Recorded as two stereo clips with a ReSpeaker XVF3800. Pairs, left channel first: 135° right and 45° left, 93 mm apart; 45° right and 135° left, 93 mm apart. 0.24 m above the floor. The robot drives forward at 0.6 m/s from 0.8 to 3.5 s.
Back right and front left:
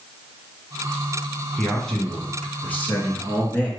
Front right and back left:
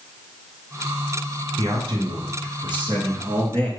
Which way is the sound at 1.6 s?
140° left.